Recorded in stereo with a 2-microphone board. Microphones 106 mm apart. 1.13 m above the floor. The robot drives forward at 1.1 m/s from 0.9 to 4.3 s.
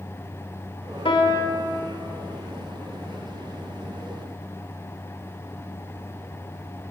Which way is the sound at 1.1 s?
60° left (ahead or behind).